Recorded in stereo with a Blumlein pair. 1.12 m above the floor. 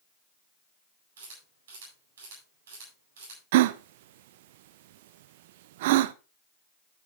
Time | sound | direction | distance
1.2 | a camera shutter | 60° right | 8.5 m
3.5 | a gasp | 50° right | 0.6 m